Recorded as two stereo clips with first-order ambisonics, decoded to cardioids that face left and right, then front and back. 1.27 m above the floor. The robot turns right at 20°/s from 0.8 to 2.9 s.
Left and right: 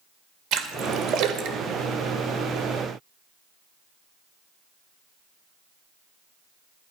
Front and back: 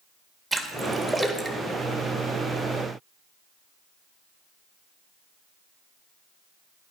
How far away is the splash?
About 1.3 m.